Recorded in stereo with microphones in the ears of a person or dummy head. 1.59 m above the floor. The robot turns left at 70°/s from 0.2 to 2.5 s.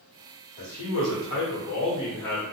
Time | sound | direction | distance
0.6 | a man speaking | 130° left | 1.1 m